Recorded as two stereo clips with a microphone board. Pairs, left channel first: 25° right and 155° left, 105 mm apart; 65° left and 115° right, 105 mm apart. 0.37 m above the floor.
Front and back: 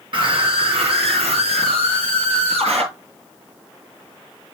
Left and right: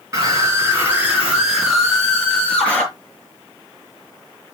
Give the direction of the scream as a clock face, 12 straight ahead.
6 o'clock.